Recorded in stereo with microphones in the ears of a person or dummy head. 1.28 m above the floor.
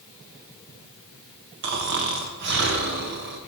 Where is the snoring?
55° right (ahead or behind), 0.7 m.